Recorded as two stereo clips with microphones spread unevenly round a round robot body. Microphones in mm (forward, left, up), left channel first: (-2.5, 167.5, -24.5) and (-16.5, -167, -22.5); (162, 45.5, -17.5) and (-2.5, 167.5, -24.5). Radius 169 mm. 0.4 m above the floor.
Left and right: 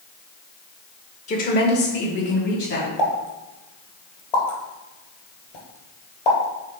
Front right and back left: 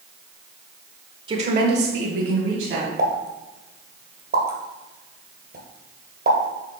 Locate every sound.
1.3 s a woman speaking: 125° left, 0.8 m; by 2.9 s 145° left, 2.5 m
3.0 s a pop: 105° left, 2 m